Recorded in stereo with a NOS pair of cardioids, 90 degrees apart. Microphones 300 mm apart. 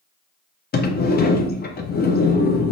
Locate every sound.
0.7 s a sliding door: 35° left, 0.5 m